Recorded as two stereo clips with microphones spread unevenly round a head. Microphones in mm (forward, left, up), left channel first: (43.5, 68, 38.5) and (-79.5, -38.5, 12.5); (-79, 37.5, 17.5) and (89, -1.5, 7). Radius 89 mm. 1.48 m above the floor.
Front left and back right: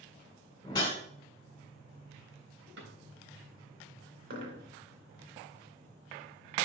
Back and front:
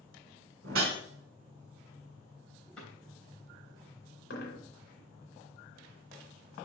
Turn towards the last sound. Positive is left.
turn(degrees=-170)